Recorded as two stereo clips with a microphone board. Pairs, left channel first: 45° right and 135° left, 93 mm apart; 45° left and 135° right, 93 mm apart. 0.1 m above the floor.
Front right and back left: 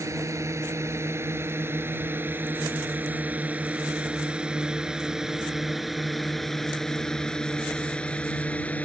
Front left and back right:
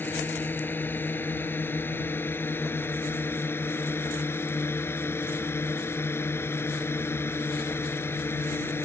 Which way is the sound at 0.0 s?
100° left.